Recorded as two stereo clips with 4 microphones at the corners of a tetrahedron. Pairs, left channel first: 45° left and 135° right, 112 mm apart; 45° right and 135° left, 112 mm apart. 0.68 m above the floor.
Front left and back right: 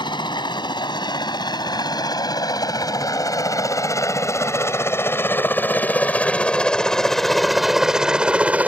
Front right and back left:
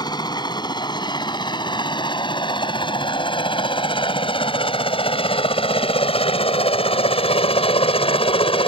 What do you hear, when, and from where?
0.0 s a helicopter: straight ahead; by 8.7 s 60° right